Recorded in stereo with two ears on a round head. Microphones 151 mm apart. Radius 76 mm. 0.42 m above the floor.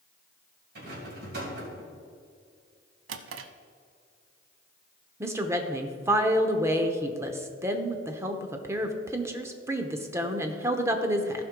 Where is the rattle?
60° right (ahead or behind), 3 m.